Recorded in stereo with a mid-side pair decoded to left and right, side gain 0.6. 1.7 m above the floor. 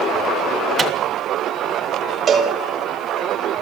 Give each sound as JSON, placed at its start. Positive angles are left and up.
{"t": 0.8, "sound": "a microwave", "azimuth_deg": -30, "distance_m": 1.9}
{"t": 2.3, "sound": "a cowbell", "azimuth_deg": -40, "distance_m": 2.5}